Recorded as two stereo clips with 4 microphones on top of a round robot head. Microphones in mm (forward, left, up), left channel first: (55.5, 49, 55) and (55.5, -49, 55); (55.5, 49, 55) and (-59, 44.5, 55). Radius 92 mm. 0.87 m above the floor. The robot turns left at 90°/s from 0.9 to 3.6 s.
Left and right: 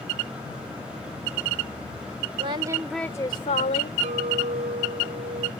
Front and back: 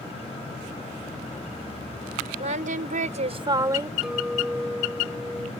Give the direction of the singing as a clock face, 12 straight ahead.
4 o'clock.